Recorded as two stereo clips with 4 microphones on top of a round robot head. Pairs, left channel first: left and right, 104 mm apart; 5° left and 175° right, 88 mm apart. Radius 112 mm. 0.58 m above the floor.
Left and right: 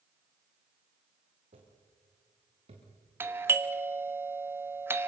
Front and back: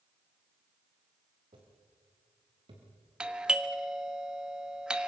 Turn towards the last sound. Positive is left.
turn(degrees=-110)